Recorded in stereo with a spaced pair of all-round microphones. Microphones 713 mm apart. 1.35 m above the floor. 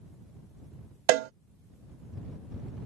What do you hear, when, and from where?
1.1 s a cowbell: 75° right (ahead or behind)